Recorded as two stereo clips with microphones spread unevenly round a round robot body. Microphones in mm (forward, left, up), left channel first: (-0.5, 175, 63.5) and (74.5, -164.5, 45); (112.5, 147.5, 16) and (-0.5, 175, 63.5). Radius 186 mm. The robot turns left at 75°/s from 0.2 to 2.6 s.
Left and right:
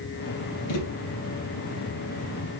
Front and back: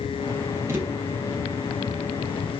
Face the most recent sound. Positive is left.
turn(degrees=-40)